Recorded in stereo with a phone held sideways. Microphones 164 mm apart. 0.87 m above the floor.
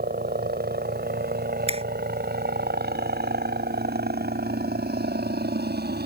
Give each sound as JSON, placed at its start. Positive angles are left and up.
{"t": 0.0, "sound": "a helicopter", "side_deg": -75}
{"t": 1.7, "sound": "a finger snap", "side_deg": -40}